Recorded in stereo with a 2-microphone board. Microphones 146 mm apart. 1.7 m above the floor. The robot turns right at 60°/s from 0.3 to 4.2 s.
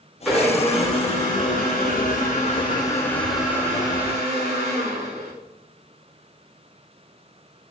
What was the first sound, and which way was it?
A blender, 5° right.